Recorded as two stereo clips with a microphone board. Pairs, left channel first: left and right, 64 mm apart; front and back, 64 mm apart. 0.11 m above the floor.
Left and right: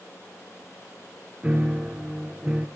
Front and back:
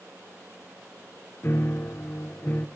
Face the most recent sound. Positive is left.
turn(degrees=-25)